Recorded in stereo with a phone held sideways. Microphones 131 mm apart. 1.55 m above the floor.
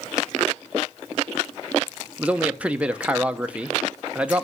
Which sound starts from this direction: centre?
A man speaking, at 2.2 s.